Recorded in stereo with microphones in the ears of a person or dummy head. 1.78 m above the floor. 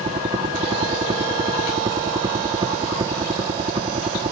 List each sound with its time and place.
0.0 s a helicopter: 25° right (ahead or behind)